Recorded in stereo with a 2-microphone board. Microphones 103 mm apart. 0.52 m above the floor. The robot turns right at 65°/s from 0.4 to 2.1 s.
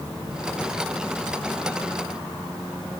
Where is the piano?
I don't hear a piano.